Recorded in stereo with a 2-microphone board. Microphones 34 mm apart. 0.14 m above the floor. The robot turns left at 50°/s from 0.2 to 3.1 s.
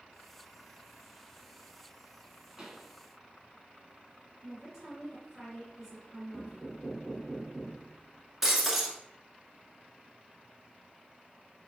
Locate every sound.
2.6 s a pop: 20° right (ahead or behind), 1.0 m; by 2.9 s 25° right (ahead or behind), 1.0 m
4.4 s a woman speaking: 10° right (ahead or behind), 1.8 m
6.3 s knocking: 5° left (ahead or behind), 0.8 m
8.4 s breaking glass: 10° right (ahead or behind), 0.8 m